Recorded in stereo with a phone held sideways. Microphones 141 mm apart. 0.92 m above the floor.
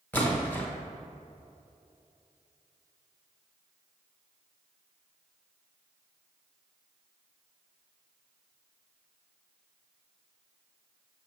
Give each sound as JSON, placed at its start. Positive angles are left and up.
{"t": 0.1, "sound": "a splash", "side_deg": 15, "distance_m": 1.0}